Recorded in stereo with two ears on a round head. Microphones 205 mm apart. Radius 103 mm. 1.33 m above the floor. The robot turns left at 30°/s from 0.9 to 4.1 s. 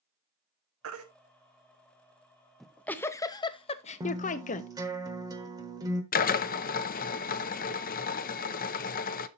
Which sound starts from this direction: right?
A baby crying, at 0.8 s.